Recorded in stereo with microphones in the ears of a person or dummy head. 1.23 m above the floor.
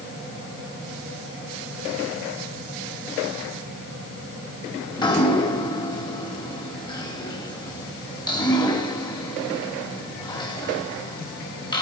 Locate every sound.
4.9 s dripping: 25° left (ahead or behind), 3 m